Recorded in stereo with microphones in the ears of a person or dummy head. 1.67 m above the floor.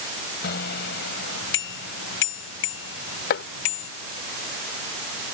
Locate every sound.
0.4 s a bicycle bell: 55° left (ahead or behind); by 3.9 s 80° left
3.3 s chopping: 45° left (ahead or behind)